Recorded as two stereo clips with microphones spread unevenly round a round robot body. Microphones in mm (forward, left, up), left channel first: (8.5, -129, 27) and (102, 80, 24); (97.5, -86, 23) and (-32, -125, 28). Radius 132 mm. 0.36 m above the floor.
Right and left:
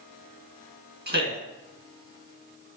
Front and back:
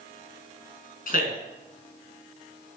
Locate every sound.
1.1 s a man speaking: 25° left, 3.5 m